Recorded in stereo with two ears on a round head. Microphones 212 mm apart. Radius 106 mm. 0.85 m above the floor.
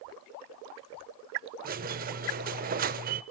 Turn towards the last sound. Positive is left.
turn(degrees=-35)  # may be behind; listen again after turning